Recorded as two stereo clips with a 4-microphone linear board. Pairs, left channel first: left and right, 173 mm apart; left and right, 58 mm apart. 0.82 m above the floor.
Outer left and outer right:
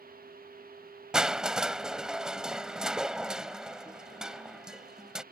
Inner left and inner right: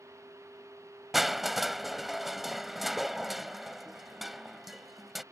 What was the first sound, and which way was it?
Crushing, 5° right (ahead or behind).